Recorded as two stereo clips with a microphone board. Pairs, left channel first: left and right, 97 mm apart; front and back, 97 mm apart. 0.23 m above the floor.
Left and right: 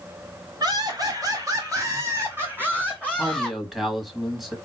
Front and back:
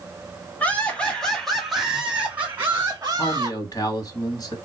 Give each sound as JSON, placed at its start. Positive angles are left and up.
{"t": 0.6, "sound": "laughter", "azimuth_deg": -70, "distance_m": 1.7}
{"t": 3.2, "sound": "a man speaking", "azimuth_deg": -5, "distance_m": 1.2}